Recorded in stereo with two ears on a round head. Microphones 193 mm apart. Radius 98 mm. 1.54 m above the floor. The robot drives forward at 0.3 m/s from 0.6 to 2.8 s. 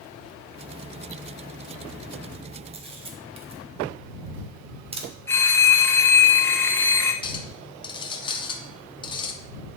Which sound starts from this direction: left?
A clink, at 7.2 s.